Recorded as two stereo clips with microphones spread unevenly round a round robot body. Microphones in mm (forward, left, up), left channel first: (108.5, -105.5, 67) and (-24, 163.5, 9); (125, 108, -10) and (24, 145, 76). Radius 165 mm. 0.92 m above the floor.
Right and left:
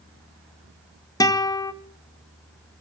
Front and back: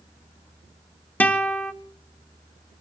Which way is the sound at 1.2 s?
20° left.